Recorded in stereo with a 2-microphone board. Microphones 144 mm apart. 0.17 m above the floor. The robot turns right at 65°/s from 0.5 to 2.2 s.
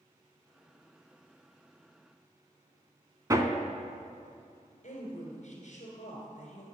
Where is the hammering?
25° right (ahead or behind), 0.6 m.